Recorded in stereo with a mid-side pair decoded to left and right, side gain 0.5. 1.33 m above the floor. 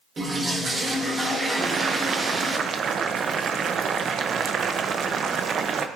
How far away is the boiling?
About 0.7 m.